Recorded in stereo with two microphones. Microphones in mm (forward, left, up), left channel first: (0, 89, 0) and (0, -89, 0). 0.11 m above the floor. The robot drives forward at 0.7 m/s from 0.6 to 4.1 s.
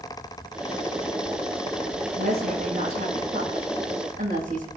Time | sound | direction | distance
2.2 | a woman speaking | 60° right (ahead or behind) | 5 m